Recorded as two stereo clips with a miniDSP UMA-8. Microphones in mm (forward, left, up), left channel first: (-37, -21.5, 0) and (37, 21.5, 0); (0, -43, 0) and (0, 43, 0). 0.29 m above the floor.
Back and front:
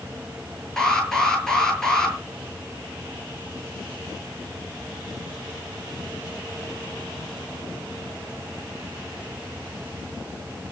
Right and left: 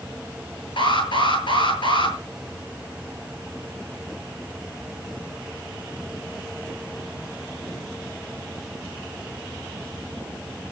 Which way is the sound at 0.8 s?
65° right.